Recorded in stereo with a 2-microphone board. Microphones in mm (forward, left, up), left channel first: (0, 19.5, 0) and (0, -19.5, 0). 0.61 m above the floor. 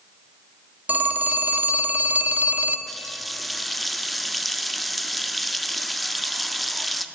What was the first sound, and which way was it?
A phone ringing, 45° right (ahead or behind).